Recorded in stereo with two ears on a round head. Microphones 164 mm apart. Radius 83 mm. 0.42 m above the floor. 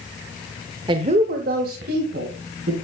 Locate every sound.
0.9 s a woman speaking: 25° right (ahead or behind), 1.0 m; by 2.7 s 65° right (ahead or behind), 3.5 m